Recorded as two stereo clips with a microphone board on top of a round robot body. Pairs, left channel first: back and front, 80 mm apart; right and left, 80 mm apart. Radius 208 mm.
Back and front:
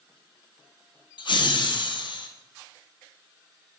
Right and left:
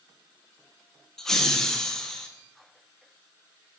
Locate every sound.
1.2 s laughter: 175° right, 0.6 m